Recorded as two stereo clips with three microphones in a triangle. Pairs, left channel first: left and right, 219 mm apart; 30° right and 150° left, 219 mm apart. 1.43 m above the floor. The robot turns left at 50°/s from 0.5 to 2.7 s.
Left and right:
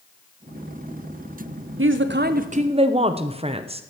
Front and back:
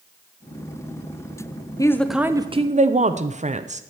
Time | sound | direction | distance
1.8 | a woman speaking | 105° right | 0.7 m